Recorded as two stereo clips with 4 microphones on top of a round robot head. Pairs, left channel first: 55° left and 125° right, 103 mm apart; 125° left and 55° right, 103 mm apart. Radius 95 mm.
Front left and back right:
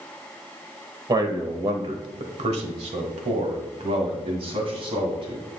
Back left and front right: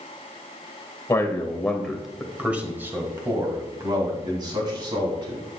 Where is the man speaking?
175° right, 1.4 m; by 5.4 s 95° right, 3 m.